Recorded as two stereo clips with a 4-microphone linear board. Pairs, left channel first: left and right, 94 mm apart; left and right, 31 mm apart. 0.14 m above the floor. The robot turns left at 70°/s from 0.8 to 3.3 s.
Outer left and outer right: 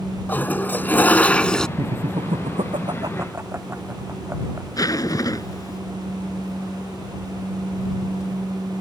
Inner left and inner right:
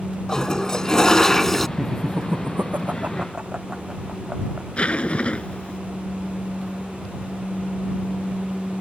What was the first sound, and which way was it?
A toilet flushing, 20° left (ahead or behind).